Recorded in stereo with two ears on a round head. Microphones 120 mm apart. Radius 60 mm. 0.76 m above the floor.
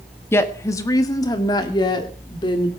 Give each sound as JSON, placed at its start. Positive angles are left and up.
{"t": 0.3, "sound": "a woman speaking", "side_deg": 20, "distance_m": 1.3}